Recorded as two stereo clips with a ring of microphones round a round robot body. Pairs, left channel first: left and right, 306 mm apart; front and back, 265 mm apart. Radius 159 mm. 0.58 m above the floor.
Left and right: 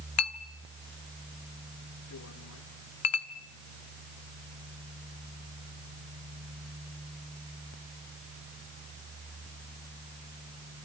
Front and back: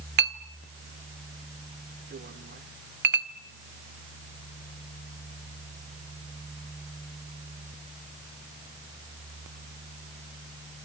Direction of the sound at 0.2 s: 130° left.